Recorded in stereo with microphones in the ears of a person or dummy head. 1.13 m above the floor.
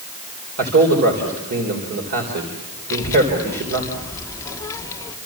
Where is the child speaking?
15° left (ahead or behind), 1.8 m.